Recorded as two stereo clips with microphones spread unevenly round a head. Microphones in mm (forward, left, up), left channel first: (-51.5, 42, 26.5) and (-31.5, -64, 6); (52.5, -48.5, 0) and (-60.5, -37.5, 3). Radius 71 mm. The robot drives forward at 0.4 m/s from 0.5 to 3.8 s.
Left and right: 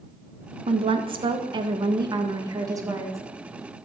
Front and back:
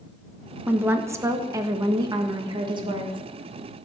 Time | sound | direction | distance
0.7 | a woman speaking | 110° right | 1.4 m